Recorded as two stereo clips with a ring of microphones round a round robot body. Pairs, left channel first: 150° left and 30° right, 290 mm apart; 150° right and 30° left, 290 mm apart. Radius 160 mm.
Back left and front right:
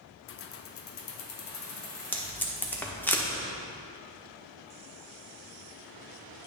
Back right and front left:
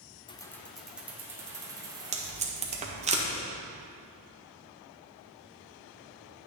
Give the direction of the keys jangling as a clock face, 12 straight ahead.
7 o'clock.